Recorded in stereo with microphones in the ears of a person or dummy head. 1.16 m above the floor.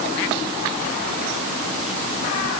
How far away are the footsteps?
I don't hear footsteps.